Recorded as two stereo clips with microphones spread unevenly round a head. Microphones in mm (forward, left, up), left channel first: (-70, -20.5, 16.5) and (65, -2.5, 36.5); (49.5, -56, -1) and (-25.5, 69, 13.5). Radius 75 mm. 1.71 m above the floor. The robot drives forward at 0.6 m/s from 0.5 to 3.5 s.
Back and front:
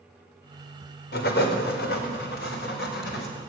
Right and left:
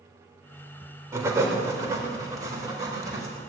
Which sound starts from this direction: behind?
Writing, at 1.1 s.